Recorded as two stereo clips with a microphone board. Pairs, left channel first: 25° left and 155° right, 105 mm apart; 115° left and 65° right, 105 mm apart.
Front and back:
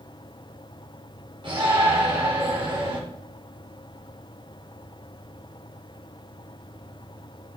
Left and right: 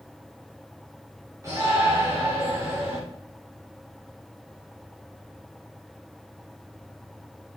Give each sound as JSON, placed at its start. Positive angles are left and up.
{"t": 1.4, "sound": "a shout", "azimuth_deg": -125, "distance_m": 4.0}